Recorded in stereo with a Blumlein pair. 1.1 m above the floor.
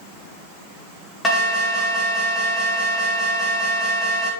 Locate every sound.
1.2 s an alarm: 5° left, 3 m